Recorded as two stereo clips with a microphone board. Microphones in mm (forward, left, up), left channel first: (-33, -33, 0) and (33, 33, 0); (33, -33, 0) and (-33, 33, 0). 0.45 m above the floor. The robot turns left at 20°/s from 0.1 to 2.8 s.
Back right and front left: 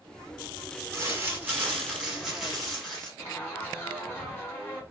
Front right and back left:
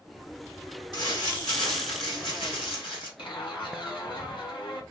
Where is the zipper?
70° right, 1.6 m.